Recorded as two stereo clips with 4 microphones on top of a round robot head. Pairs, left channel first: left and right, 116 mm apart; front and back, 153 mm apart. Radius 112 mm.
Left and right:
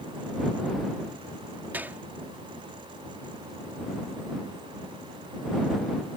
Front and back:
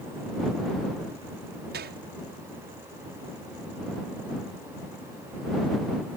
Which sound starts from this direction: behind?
A gunshot, at 1.7 s.